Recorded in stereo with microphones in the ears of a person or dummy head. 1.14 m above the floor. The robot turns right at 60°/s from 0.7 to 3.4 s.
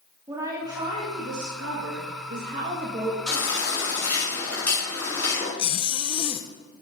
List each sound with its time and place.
0.3 s a woman speaking: 165° right, 1.9 m; by 3.2 s 15° right, 1.9 m
3.3 s a baby crying: centre (ahead or behind), 5.5 m; by 5.5 s 10° left (ahead or behind), 5.5 m
5.6 s a zipper: 30° left (ahead or behind), 0.6 m